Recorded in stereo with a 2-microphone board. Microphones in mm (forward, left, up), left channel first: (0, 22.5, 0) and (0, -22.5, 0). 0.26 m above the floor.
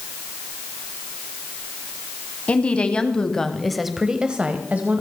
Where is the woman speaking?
30° left (ahead or behind), 1.5 m; by 5.0 s 40° right (ahead or behind), 1.2 m.